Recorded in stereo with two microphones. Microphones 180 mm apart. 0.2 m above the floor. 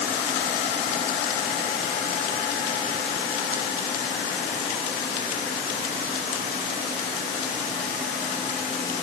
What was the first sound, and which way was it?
Only background noise.